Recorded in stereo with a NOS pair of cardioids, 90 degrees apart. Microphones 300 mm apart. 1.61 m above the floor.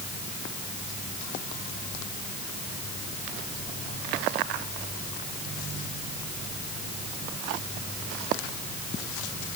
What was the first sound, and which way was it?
Only background noise.